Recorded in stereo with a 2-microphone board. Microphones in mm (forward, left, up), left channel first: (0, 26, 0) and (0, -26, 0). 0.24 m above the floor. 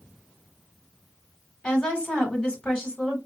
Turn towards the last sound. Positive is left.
turn(degrees=25)  # may be behind; listen again after turning